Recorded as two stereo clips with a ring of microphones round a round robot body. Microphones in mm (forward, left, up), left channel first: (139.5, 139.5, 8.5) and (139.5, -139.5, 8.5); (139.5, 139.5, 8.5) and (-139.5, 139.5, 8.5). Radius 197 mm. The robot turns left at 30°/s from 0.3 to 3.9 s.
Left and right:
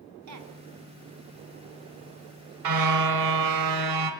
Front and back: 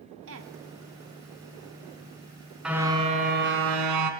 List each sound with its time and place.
0.3 s a woman speaking: 125° right, 2.0 m; by 0.5 s 135° right, 2.0 m
2.6 s a car horn: 90° right, 3 m; by 4.1 s 130° right, 3 m